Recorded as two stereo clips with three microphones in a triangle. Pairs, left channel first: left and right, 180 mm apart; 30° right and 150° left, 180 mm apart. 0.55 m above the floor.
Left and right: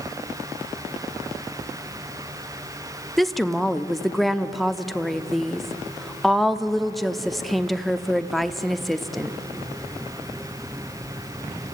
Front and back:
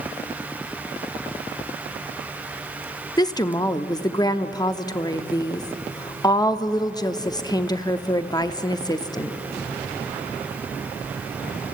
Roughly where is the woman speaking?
Ahead.